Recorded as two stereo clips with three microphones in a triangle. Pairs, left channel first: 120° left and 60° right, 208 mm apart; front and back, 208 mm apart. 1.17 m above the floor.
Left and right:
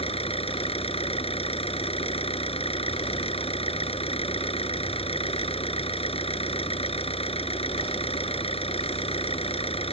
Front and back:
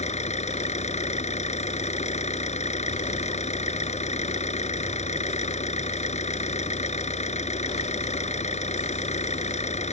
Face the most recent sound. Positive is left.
turn(degrees=55)